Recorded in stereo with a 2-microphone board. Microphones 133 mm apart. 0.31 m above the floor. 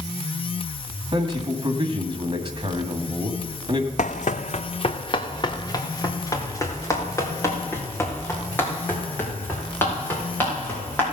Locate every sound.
1.1 s a man speaking: 35° right (ahead or behind), 2 m
4.0 s running footsteps: 65° left (ahead or behind), 0.7 m; by 11.0 s 15° left (ahead or behind), 7.5 m